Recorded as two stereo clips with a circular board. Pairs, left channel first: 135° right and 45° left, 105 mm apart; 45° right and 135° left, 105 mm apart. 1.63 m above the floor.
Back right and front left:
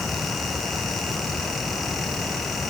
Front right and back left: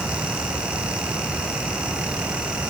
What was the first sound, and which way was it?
Only background noise.